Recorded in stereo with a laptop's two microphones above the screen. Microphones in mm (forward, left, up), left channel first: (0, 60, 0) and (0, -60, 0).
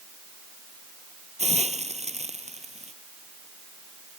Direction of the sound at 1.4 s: 70° right (ahead or behind).